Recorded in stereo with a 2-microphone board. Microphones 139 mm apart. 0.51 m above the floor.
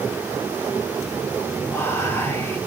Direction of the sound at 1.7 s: 15° left (ahead or behind).